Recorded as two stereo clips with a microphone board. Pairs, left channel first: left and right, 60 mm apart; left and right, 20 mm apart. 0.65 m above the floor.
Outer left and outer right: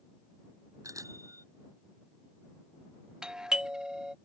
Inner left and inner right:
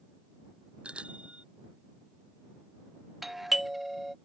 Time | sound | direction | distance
0.8 | a bicycle bell | 60° right (ahead or behind) | ?
3.2 | a doorbell | 15° right (ahead or behind) | ?